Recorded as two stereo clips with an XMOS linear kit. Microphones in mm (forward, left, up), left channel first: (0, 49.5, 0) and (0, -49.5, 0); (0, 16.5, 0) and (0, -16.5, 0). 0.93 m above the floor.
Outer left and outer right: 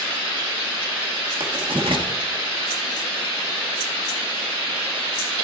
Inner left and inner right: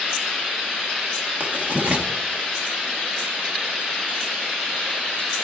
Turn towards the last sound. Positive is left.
turn(degrees=-55)  # may be behind; listen again after turning